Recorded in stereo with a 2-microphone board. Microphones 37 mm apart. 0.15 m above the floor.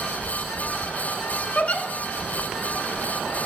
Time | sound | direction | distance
1.6 | a giggle | 45° left (ahead or behind) | 0.7 m